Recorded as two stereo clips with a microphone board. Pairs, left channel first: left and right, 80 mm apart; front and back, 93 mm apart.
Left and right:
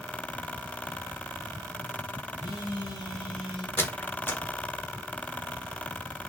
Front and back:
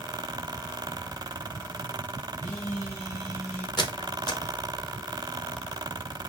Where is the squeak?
30° left, 0.7 m.